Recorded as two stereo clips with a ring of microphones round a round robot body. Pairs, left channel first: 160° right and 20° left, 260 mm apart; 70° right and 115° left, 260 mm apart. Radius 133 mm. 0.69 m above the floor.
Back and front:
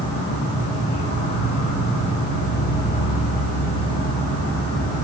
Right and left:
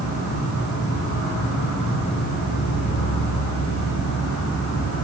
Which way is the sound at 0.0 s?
95° right.